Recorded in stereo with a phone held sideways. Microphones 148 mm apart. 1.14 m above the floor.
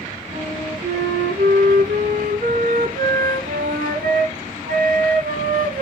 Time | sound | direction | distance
0.3 | a flute | 70° right (ahead or behind) | 3.5 m